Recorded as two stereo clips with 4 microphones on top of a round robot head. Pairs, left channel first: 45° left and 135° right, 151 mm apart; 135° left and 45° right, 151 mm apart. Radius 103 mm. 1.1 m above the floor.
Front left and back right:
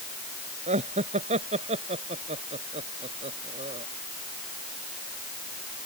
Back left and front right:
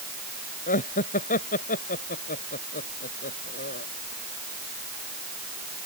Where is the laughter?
175° left; by 3.9 s 170° left.